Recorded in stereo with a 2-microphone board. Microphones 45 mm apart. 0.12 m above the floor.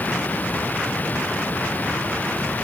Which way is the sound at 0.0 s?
40° left (ahead or behind).